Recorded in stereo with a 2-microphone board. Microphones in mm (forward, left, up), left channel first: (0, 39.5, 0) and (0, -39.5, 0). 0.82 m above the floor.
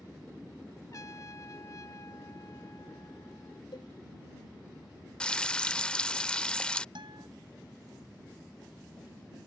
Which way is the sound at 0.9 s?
45° left (ahead or behind).